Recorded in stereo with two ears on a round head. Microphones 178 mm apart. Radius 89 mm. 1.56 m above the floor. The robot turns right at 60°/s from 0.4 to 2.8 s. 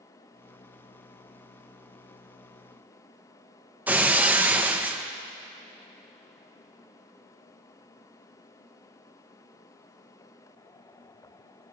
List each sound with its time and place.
3.9 s breaking glass: 10° right (ahead or behind), 0.8 m